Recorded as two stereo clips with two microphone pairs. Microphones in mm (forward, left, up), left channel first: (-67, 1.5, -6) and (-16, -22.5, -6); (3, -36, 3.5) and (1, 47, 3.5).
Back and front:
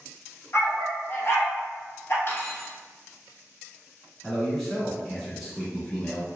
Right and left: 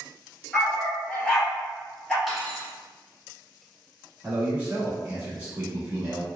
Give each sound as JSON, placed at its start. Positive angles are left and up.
{"t": 0.5, "sound": "a dog barking", "azimuth_deg": -170, "distance_m": 0.9}
{"t": 2.3, "sound": "cutlery clinking", "azimuth_deg": 180, "distance_m": 1.0}
{"t": 4.2, "sound": "a man speaking", "azimuth_deg": 80, "distance_m": 1.0}